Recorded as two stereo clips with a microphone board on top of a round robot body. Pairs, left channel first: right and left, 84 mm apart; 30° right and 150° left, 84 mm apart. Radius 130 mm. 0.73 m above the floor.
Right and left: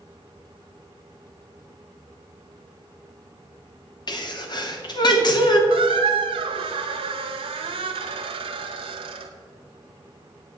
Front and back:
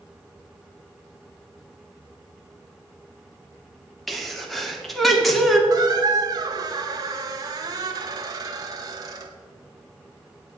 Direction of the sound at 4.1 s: 120° right.